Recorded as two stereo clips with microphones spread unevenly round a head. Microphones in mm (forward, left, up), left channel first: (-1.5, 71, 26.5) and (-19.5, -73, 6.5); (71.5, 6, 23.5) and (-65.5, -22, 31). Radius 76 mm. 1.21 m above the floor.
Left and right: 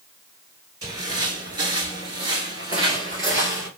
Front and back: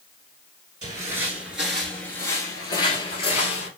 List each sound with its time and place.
0.8 s footsteps: 150° right, 1.3 m; by 3.7 s 25° right, 1.8 m